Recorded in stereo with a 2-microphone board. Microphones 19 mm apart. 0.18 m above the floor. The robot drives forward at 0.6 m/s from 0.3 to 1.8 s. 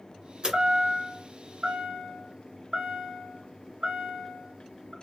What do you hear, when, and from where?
0.4 s a chime: 50° right (ahead or behind), 2.0 m; by 4.9 s 55° right (ahead or behind), 1.8 m